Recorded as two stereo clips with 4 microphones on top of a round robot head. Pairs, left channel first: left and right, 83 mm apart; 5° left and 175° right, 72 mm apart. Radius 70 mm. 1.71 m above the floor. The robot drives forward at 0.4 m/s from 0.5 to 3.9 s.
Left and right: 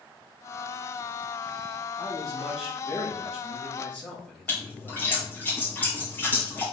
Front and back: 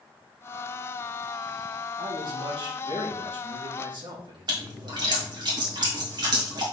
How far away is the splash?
About 2 m.